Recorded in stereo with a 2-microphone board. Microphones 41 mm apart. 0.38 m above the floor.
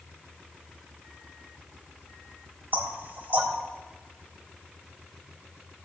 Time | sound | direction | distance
2.7 | knocking | 50° right (ahead or behind) | 1.4 m